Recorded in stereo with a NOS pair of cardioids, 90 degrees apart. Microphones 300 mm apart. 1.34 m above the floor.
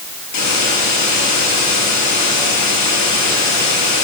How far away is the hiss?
About 6 m.